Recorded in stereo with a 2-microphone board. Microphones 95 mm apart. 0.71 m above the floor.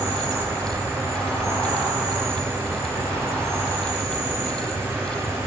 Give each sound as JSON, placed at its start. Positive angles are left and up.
{"t": 0.0, "sound": "an insect", "side_deg": -35, "distance_m": 3.0}